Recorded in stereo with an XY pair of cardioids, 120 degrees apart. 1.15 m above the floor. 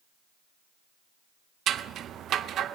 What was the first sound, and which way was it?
Scissors, 60° right.